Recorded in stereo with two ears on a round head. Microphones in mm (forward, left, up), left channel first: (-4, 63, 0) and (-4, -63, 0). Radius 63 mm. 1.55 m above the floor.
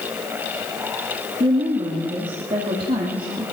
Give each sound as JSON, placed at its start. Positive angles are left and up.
{"t": 1.4, "sound": "a woman speaking", "side_deg": -40, "distance_m": 3.0}